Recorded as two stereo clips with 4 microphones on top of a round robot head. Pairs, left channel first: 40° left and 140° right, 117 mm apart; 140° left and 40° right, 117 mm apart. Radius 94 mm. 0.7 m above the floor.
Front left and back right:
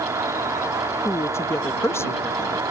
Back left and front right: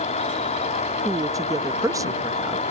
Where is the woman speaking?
10° right.